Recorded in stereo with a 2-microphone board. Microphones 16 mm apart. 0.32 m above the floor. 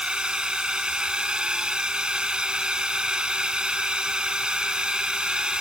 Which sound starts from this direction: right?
A drone, at 0.0 s.